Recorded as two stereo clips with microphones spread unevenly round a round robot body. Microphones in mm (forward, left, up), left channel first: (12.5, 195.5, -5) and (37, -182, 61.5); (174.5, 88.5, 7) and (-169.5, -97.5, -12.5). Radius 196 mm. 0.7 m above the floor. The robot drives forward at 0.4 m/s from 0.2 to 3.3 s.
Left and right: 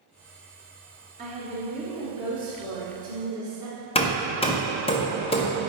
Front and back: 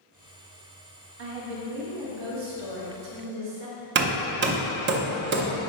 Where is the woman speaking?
160° right, 1.3 m; by 3.9 s 170° right, 2 m.